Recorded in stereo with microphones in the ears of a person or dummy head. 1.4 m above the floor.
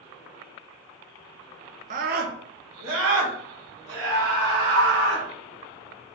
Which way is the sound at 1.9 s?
35° right (ahead or behind).